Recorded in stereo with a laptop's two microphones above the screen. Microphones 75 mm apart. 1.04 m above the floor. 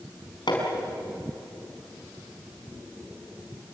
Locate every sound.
0.5 s hammering: 85° left, 5 m